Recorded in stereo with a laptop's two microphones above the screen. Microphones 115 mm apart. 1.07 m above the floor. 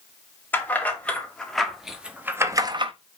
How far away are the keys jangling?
About 2.5 m.